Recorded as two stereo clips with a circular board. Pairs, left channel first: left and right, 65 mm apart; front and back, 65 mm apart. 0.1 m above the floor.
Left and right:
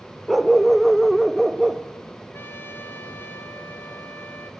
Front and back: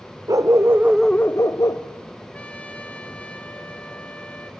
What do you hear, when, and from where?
0.3 s a dog barking: straight behind, 1.1 m; by 2.2 s straight ahead, 1.7 m
2.3 s a trumpet: 60° left, 1.6 m